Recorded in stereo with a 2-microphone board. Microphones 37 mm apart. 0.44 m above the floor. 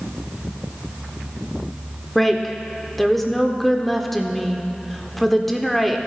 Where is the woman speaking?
5° left (ahead or behind), 0.7 m.